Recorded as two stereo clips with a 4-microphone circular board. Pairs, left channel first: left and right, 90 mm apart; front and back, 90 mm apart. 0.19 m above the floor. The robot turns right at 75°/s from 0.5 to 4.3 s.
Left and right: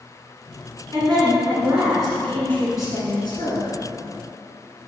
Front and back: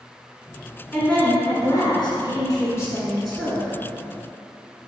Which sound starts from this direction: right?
A woman speaking, at 0.9 s.